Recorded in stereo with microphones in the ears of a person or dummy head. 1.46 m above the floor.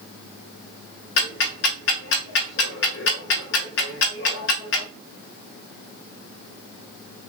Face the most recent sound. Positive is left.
turn(degrees=60)  # may be behind; listen again after turning